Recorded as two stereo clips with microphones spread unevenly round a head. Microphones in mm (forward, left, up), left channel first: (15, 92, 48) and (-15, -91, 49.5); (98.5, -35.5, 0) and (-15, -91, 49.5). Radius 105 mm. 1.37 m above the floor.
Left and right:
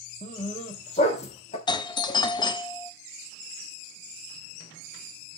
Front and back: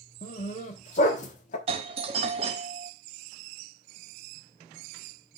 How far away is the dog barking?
About 0.9 m.